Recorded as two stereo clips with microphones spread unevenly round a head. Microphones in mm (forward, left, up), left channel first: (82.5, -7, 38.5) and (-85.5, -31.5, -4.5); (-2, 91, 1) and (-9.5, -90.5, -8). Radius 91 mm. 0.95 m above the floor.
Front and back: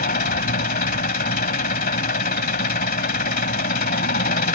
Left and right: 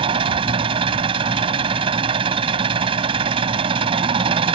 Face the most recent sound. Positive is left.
turn(degrees=-30)